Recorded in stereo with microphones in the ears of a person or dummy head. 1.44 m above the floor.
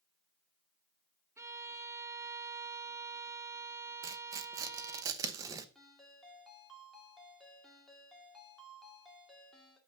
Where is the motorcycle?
I don't hear a motorcycle.